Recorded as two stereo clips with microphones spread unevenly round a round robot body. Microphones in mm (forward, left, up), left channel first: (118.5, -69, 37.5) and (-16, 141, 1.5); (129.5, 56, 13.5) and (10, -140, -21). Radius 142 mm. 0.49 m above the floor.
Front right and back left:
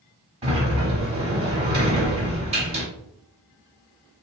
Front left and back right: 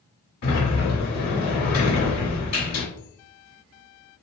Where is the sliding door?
90° left, 1.3 m.